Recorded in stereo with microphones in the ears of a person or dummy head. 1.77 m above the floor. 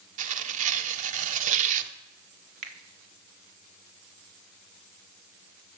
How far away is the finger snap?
About 0.9 m.